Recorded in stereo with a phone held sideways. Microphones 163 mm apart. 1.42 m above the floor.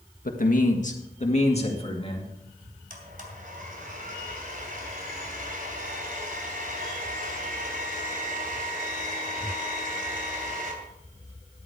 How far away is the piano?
No piano in this recording.